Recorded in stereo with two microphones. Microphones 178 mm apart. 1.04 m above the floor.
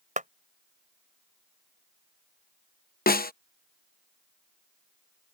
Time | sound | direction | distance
0.2 | a clap | 45° right (ahead or behind) | ?
3.1 | a snare drum | 55° left (ahead or behind) | ?